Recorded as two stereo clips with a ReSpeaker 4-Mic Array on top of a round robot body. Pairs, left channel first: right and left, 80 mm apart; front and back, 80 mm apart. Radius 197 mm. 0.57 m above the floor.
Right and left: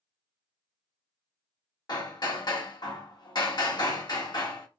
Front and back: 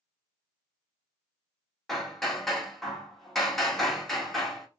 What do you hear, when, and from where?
1.9 s hammering: 90° right, 1.6 m